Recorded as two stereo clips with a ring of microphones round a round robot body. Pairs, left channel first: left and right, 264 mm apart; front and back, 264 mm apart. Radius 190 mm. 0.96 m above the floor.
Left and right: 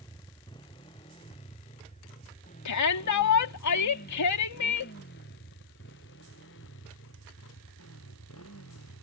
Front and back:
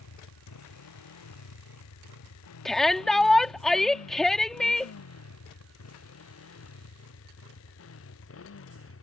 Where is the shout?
90° left.